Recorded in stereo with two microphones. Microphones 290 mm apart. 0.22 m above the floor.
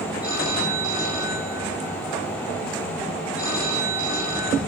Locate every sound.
0.2 s a phone ringing: 80° right, 8 m